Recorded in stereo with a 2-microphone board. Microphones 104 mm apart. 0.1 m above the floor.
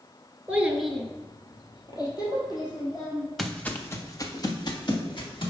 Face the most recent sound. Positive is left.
turn(degrees=55)  # may be behind; listen again after turning